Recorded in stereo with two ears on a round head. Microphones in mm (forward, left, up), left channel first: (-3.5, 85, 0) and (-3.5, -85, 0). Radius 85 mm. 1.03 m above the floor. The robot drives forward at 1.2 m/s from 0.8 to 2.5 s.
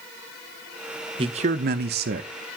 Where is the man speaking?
30° right (ahead or behind), 1.1 m; by 2.3 s 45° right (ahead or behind), 0.8 m.